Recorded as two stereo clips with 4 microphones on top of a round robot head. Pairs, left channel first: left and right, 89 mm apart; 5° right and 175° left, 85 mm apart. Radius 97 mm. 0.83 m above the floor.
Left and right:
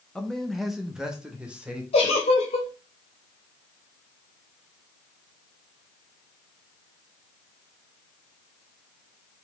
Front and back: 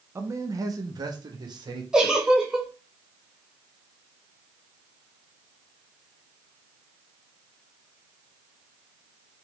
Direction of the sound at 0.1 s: 165° left.